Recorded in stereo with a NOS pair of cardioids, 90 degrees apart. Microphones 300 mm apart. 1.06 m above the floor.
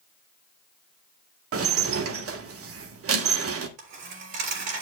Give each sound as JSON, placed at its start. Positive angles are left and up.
{"t": 1.5, "sound": "dishes clattering", "azimuth_deg": -50, "distance_m": 1.4}
{"t": 3.8, "sound": "a dropped coin", "azimuth_deg": -70, "distance_m": 3.5}